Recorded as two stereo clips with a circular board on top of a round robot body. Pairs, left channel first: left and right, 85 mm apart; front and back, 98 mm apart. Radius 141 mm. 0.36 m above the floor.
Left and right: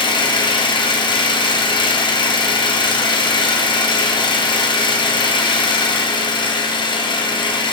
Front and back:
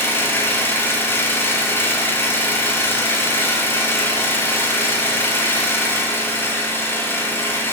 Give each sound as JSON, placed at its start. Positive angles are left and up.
{"t": 0.0, "sound": "an engine running", "azimuth_deg": 70, "distance_m": 1.8}